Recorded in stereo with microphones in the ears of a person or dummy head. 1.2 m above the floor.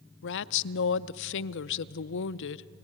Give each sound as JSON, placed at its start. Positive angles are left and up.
{"t": 0.2, "sound": "a woman speaking", "side_deg": 65, "distance_m": 0.5}